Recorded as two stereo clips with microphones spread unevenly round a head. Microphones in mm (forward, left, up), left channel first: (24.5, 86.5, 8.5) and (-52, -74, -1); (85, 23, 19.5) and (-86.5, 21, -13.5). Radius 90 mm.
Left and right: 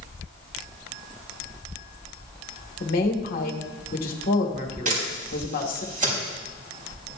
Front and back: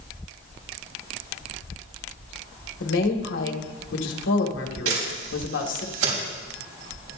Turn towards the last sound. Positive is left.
turn(degrees=-160)